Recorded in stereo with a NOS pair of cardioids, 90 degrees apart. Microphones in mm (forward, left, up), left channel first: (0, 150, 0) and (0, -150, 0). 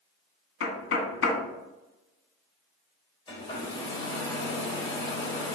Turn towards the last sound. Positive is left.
turn(degrees=15)